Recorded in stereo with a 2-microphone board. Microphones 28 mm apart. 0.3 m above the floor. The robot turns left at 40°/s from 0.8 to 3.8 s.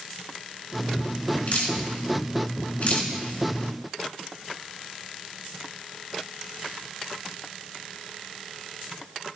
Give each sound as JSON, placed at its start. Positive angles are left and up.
{"t": 1.5, "sound": "dripping", "side_deg": 55, "distance_m": 3.5}